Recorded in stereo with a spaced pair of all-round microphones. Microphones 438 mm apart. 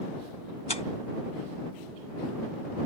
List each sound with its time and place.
0.7 s tearing paper: 70° left (ahead or behind)